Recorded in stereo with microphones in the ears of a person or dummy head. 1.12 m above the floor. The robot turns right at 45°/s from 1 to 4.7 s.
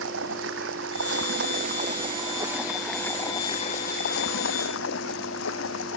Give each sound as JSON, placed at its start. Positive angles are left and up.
{"t": 0.0, "sound": "running water", "azimuth_deg": -85}